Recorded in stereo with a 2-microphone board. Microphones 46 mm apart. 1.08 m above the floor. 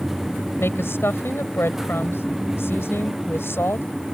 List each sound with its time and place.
0.6 s a woman speaking: 60° left (ahead or behind)